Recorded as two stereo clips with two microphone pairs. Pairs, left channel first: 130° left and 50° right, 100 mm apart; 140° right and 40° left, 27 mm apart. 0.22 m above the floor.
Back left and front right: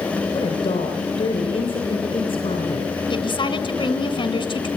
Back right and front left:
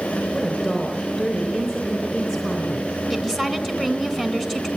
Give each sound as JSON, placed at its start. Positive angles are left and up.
{"t": 0.3, "sound": "a woman speaking", "azimuth_deg": 155, "distance_m": 3.5}
{"t": 3.1, "sound": "a woman speaking", "azimuth_deg": 145, "distance_m": 2.0}